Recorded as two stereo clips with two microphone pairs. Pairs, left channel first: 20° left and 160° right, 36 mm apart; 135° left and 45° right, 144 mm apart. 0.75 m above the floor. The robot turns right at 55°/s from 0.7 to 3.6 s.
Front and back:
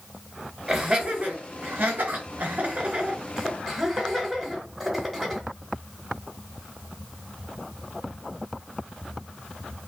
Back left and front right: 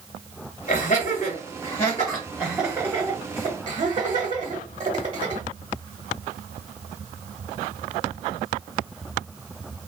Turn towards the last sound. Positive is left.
turn(degrees=-75)